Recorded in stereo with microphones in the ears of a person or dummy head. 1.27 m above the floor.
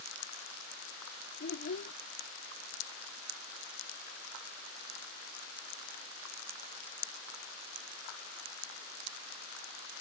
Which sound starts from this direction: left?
A child speaking, at 1.4 s.